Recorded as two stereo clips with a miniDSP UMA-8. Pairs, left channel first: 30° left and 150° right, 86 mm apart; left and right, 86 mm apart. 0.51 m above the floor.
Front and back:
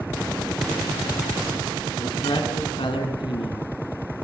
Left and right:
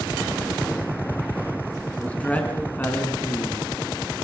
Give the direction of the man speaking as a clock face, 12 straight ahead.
11 o'clock.